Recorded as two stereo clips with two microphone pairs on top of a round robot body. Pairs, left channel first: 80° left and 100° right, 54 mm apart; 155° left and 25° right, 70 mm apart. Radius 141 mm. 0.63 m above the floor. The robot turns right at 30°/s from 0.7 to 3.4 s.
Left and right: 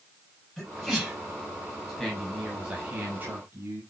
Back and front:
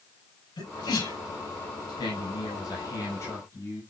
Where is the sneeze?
155° left, 6 m; by 1.2 s 170° left, 6 m.